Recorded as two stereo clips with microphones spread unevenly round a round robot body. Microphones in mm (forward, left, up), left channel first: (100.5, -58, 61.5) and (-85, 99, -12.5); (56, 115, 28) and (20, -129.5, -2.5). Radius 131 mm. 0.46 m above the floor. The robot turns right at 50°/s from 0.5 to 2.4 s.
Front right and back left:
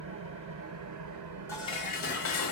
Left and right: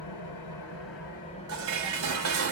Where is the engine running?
105° left, 3 m; by 2.5 s 160° right, 3 m.